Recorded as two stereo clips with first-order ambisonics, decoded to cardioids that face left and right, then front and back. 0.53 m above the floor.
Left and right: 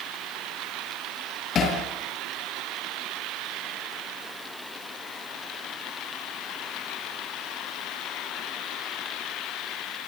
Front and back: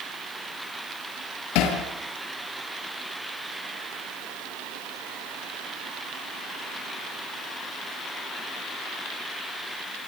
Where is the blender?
No blender in this recording.